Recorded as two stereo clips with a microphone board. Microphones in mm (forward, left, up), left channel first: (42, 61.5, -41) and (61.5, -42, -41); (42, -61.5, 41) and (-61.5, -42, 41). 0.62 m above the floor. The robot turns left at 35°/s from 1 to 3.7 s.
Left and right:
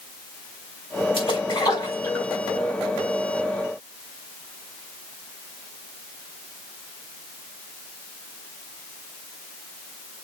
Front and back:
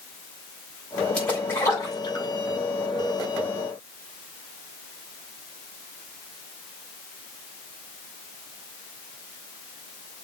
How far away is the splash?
About 4 m.